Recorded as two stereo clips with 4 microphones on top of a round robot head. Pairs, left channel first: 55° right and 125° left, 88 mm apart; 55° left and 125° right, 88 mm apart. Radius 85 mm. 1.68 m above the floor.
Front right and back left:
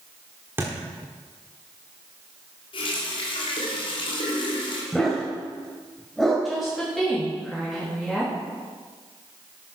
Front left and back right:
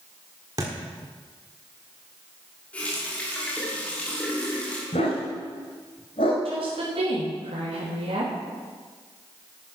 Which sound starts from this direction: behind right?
A woman speaking, at 6.5 s.